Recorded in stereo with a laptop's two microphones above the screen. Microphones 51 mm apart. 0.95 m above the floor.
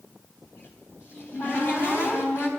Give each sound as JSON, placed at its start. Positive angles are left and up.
{"t": 0.4, "sound": "a cupboard door", "side_deg": 45, "distance_m": 4.0}